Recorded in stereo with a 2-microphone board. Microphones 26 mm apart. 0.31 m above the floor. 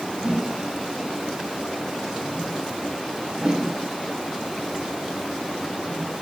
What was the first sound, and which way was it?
A whoosh, 35° right (ahead or behind).